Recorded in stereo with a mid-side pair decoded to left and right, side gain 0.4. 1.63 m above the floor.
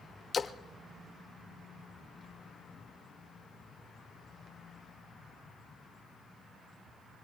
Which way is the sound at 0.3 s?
45° left.